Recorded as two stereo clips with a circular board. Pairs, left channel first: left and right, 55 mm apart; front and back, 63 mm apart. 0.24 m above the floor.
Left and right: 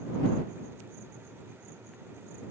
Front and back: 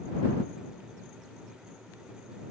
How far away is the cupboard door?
I don't hear a cupboard door.